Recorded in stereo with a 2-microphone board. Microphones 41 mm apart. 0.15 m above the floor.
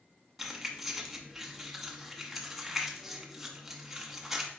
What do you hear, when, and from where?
0.4 s keys jangling: 5° right (ahead or behind), 0.8 m